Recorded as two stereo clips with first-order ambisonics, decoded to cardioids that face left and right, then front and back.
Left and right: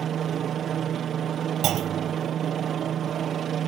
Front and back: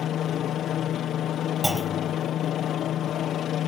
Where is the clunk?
90° right.